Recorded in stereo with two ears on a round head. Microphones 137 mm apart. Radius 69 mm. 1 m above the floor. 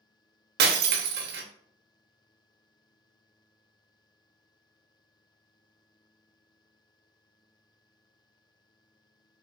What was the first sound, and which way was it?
Breaking glass, 70° right (ahead or behind).